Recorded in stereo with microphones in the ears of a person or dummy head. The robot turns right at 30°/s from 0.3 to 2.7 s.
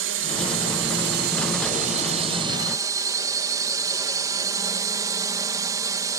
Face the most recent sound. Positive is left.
turn(degrees=-25)